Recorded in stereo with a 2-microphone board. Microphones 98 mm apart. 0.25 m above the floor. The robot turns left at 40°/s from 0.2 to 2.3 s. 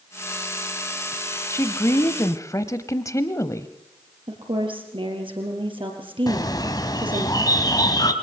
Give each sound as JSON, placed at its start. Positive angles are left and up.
{"t": 1.5, "sound": "a woman speaking", "azimuth_deg": 120, "distance_m": 1.0}
{"t": 4.3, "sound": "a woman speaking", "side_deg": -55, "distance_m": 4.5}
{"t": 6.3, "sound": "a bird", "side_deg": 40, "distance_m": 1.4}